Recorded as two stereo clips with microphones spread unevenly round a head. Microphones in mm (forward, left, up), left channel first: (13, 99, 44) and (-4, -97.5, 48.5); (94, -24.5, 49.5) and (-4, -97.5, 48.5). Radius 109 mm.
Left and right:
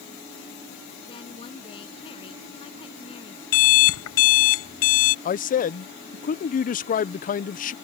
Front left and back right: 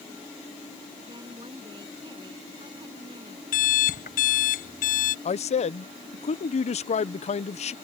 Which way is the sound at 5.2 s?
45° left.